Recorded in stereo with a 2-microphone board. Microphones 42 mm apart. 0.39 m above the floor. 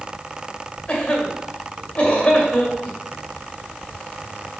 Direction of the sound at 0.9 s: 25° left (ahead or behind).